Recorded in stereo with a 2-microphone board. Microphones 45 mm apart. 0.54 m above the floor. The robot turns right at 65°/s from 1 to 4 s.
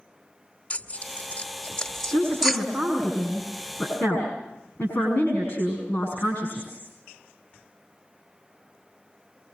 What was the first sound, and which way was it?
Tearing paper, 25° left (ahead or behind).